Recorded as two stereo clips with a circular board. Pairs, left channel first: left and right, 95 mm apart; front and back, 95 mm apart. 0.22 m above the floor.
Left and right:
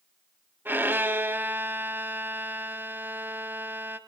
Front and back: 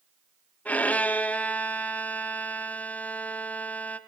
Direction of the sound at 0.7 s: 55° right.